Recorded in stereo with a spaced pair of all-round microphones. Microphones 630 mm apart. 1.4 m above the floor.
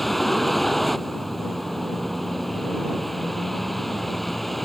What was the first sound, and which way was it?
A vehicle, centre (ahead or behind).